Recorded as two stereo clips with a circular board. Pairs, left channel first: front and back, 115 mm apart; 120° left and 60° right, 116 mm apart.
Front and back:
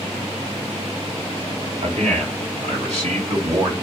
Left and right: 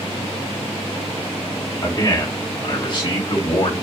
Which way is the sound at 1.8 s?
175° left.